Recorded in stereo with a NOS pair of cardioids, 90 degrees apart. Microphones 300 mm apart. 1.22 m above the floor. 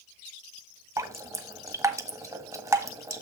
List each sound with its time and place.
1.0 s dripping: 10° right, 1.4 m